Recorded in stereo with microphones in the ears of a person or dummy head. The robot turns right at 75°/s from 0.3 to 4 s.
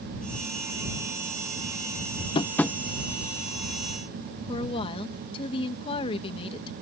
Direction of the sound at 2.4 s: 30° left (ahead or behind).